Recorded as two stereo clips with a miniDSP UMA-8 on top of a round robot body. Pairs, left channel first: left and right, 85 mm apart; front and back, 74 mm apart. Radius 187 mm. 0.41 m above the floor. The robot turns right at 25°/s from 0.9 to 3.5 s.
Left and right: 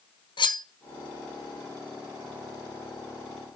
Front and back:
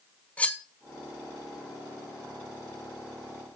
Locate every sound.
0.4 s cutlery clinking: 70° left, 1.9 m